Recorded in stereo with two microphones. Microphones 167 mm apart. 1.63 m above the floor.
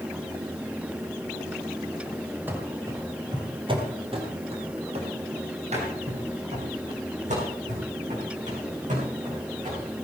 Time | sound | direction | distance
2.5 | running footsteps | 10° right (ahead or behind) | 1.9 m